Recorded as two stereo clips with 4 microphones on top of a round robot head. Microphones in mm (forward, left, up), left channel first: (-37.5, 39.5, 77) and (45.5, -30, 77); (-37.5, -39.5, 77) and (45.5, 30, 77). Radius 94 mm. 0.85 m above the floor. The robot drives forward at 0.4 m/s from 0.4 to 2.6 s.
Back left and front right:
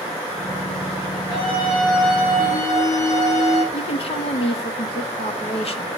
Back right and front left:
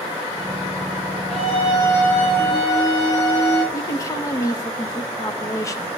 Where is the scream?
170° right, 7.5 m.